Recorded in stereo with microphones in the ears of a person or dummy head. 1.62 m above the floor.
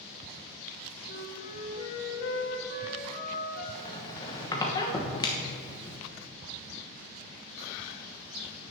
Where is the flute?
50° left (ahead or behind), 3 m.